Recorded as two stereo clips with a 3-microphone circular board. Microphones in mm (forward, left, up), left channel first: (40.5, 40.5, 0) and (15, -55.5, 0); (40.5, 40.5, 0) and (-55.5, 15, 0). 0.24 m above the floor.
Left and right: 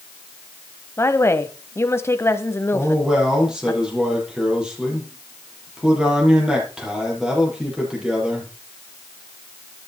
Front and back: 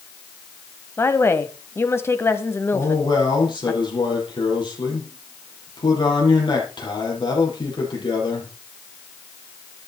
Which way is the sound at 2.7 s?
20° right.